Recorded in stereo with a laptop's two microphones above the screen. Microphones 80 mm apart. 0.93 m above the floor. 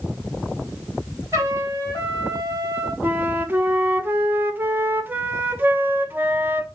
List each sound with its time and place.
1.3 s a trumpet: 45° right (ahead or behind), 1.8 m
3.0 s a flute: 25° right (ahead or behind), 0.5 m